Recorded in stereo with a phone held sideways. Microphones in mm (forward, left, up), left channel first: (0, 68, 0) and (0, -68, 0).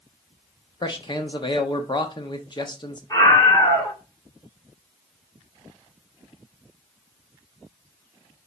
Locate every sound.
0.8 s a man speaking: 35° left (ahead or behind), 0.9 m
3.1 s a scream: 25° left (ahead or behind), 2.5 m